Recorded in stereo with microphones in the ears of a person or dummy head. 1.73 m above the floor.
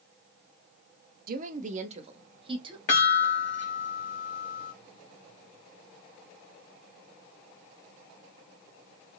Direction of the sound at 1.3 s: 50° right (ahead or behind).